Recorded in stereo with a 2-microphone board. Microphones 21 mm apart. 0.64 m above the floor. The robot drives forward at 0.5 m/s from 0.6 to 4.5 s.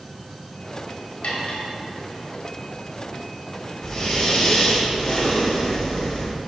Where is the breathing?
40° left (ahead or behind), 2.5 m; by 6.3 s 45° left (ahead or behind), 2.5 m.